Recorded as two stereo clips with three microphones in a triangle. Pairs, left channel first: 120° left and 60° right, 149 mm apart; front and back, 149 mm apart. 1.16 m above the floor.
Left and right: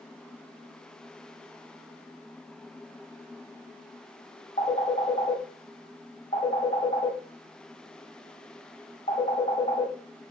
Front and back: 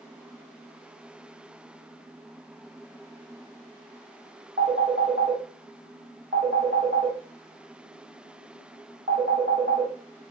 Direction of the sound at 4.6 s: 155° left.